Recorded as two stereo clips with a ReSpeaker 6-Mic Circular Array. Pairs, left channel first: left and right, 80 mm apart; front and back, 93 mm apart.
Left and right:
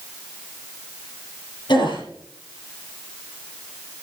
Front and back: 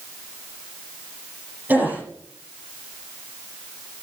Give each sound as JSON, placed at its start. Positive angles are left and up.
{"t": 1.7, "sound": "a gasp", "azimuth_deg": 110, "distance_m": 7.0}